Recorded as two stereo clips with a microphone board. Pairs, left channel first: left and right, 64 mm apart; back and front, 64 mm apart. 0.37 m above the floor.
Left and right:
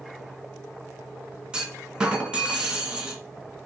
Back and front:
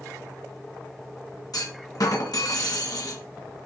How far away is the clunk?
About 2.0 m.